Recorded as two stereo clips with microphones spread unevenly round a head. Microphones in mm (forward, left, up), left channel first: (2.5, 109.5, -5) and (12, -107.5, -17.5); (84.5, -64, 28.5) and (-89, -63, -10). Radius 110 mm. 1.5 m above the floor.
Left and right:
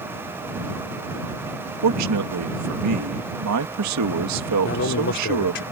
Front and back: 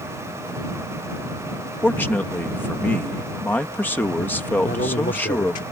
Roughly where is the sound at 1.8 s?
Right.